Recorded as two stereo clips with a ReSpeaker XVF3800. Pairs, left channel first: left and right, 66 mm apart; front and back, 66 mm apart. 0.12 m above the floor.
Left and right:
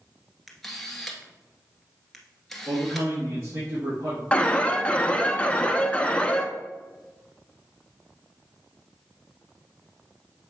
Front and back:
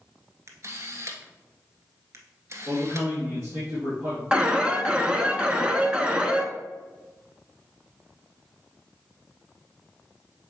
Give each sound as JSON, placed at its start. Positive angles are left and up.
{"t": 0.5, "sound": "a camera shutter", "azimuth_deg": 180, "distance_m": 1.5}
{"t": 2.7, "sound": "a man speaking", "azimuth_deg": -125, "distance_m": 3.5}
{"t": 4.3, "sound": "an alarm", "azimuth_deg": 130, "distance_m": 0.8}